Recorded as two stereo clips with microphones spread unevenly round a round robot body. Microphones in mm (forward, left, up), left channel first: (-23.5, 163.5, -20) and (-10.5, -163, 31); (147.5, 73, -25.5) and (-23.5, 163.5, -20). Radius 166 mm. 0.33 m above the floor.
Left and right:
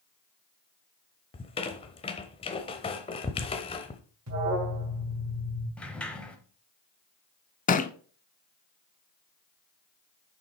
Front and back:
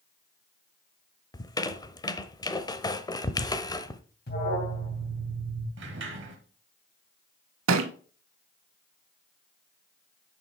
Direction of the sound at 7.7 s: 160° left.